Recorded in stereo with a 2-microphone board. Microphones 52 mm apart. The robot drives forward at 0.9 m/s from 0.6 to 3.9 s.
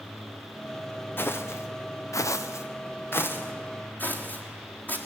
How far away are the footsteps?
About 1.8 m.